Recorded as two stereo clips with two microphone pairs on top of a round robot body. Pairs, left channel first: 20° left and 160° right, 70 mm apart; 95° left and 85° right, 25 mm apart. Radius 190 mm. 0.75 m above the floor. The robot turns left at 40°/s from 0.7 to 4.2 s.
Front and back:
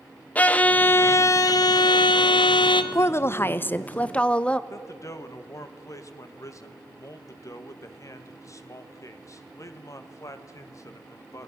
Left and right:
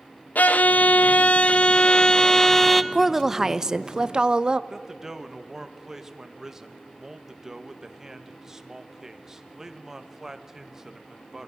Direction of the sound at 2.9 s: Straight ahead.